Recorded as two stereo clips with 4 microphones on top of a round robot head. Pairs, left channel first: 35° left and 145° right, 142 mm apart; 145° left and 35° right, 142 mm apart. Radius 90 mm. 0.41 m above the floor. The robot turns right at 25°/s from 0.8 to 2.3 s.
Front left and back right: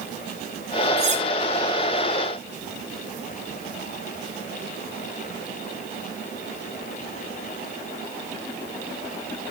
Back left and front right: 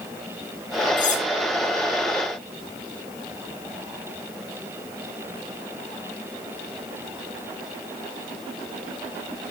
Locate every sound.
1.0 s cutlery clinking: 175° left, 1.6 m; by 1.2 s straight behind, 1.6 m